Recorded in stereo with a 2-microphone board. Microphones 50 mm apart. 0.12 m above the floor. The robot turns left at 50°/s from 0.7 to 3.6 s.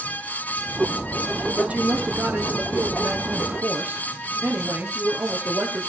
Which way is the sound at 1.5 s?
25° right.